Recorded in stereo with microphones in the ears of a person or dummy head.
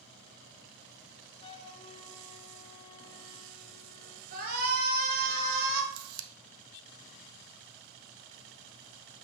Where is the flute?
30° left (ahead or behind), 0.8 m.